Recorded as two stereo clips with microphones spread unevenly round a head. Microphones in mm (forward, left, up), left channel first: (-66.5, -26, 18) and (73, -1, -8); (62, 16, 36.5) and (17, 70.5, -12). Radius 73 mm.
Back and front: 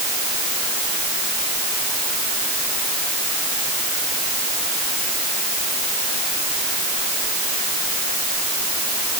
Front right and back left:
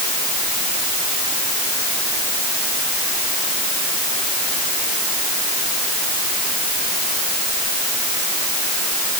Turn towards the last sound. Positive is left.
No sound to turn to.